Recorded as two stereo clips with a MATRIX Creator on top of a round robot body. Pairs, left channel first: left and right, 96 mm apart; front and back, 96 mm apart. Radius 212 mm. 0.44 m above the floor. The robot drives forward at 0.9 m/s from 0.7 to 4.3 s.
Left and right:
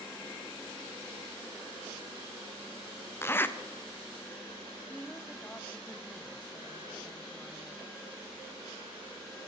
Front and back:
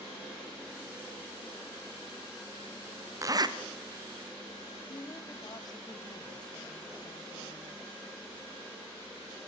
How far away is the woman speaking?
About 1.5 m.